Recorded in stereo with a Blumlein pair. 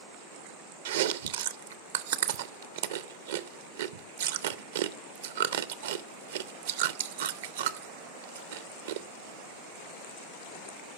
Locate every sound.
0.8 s chewing: 60° right, 0.5 m